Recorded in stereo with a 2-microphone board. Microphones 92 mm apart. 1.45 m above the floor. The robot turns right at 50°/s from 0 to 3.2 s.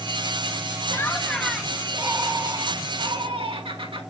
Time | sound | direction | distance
0.9 | laughter | 150° left | 2 m